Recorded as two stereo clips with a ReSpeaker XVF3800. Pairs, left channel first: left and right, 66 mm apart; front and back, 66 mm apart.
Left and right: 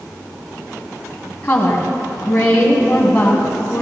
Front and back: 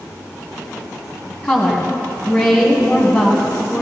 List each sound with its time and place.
1.4 s a woman speaking: 50° left, 1.6 m